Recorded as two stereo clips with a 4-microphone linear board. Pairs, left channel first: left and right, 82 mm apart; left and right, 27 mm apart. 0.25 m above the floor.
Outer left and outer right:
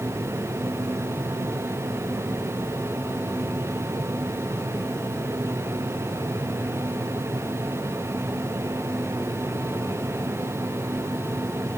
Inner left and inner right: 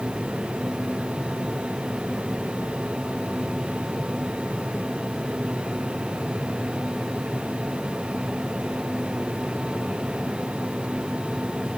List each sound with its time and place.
Only background noise.